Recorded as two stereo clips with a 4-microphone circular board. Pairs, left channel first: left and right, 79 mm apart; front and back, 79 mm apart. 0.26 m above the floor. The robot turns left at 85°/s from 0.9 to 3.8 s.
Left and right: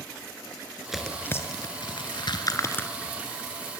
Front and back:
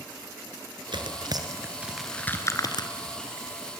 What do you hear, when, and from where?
0.9 s tearing paper: 175° right, 2.5 m; by 2.9 s 15° left, 2.5 m